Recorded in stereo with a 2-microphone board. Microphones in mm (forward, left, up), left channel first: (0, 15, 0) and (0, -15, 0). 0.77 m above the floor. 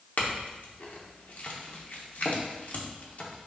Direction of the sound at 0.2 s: 60° left (ahead or behind).